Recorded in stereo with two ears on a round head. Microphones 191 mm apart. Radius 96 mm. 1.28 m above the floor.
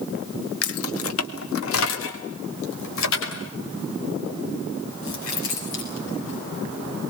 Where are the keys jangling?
75° left (ahead or behind), 1.4 m; by 7.1 s 65° left (ahead or behind), 10.5 m.